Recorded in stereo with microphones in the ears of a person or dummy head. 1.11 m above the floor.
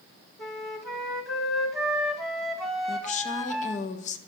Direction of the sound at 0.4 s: 5° left (ahead or behind).